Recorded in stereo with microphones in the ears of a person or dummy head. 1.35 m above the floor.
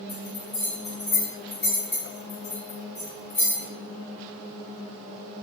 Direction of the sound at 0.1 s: 5° right (ahead or behind).